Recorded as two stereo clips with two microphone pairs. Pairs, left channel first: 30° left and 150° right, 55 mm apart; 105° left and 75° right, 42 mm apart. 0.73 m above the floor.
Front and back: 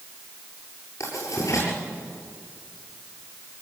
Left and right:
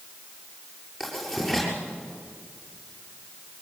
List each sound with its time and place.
1.0 s writing: 10° left, 7.5 m